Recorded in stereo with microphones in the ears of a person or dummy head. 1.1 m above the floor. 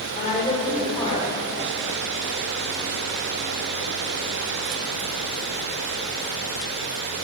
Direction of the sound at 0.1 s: 45° left (ahead or behind).